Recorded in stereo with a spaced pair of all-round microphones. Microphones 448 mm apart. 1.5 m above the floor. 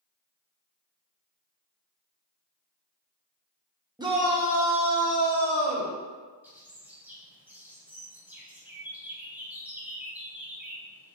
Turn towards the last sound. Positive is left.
turn(degrees=-5)  # may be behind; listen again after turning